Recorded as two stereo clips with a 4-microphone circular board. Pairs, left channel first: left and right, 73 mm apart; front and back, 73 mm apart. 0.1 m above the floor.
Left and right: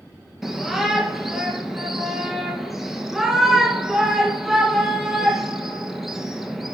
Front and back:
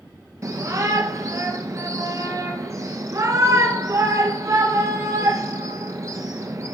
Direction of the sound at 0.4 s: 175° right.